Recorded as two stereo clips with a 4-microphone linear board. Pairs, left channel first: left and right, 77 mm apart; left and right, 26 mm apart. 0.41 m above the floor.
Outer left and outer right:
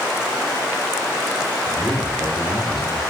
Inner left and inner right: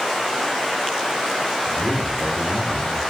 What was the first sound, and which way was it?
A man speaking, 65° left (ahead or behind).